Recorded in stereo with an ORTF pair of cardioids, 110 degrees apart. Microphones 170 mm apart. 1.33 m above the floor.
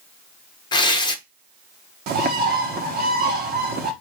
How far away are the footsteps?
I don't hear footsteps.